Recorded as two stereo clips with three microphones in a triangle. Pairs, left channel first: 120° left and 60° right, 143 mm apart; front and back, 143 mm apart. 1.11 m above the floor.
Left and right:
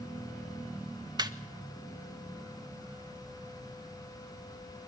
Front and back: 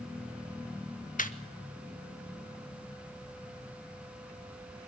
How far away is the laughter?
About 1.7 m.